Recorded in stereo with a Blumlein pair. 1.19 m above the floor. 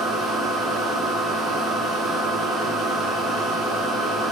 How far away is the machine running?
About 0.7 m.